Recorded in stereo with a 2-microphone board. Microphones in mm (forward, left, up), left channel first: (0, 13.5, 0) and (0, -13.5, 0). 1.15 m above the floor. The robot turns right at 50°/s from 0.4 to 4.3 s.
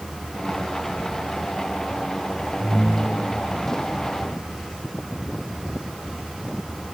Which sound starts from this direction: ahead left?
A ringtone, at 2.6 s.